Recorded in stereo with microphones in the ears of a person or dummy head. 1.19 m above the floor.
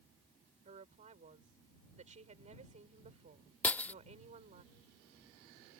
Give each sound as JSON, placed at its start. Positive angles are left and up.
{"t": 0.7, "sound": "a woman speaking", "side_deg": -40}
{"t": 3.6, "sound": "breaking glass", "side_deg": 10}